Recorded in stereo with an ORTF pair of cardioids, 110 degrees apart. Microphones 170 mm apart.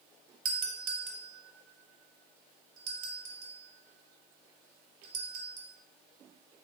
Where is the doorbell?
55° right, 0.7 m.